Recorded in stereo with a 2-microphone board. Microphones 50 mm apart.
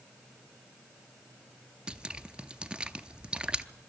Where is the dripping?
20° right (ahead or behind), 0.6 m.